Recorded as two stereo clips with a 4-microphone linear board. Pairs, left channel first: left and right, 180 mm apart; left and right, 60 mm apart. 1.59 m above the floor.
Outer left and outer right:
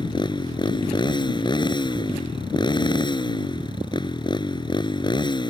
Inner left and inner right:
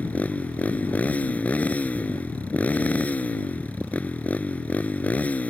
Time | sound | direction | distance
0.0 | a motorcycle | 25° left (ahead or behind) | ?